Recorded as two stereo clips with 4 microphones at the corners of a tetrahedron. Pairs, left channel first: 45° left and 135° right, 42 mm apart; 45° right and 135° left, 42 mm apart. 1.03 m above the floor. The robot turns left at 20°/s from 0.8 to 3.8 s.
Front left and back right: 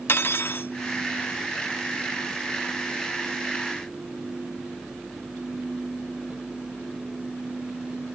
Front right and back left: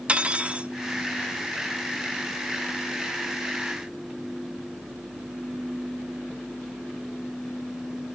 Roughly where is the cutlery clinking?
Left.